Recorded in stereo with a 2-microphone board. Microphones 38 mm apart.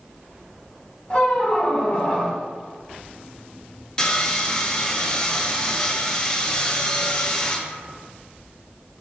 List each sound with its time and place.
1.1 s a squeak: 25° left (ahead or behind), 0.9 m
4.0 s sawing: 25° left (ahead or behind), 0.5 m